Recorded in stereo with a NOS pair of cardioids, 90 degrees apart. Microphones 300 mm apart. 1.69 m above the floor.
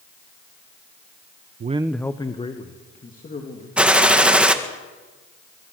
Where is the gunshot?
5° right, 1.7 m.